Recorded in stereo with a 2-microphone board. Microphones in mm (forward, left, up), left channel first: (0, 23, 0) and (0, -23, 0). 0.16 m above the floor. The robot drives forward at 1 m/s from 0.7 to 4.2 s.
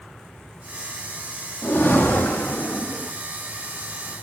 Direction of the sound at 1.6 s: 50° left (ahead or behind).